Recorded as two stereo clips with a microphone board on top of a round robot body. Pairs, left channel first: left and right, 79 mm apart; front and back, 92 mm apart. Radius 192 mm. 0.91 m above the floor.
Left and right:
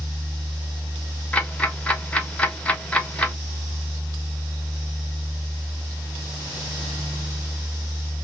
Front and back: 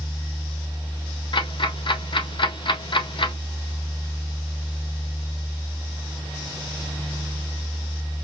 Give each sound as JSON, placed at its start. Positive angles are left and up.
{"t": 1.3, "sound": "ticking", "azimuth_deg": 15, "distance_m": 1.2}